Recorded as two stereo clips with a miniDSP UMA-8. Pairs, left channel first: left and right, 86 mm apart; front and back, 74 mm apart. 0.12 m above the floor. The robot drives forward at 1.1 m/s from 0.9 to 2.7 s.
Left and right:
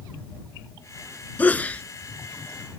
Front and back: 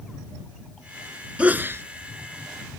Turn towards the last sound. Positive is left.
turn(degrees=170)